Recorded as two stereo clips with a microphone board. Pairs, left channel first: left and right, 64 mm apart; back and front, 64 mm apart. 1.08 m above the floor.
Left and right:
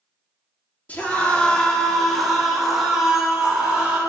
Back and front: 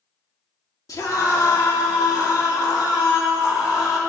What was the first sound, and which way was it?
A scream, 155° left.